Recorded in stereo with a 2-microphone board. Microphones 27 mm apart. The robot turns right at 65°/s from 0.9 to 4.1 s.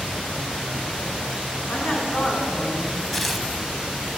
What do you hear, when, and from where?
1.7 s a woman speaking: 110° left, 4.5 m; by 3.0 s 165° right, 4.5 m
3.1 s tearing paper: centre (ahead or behind), 0.7 m; by 3.5 s 20° right (ahead or behind), 0.7 m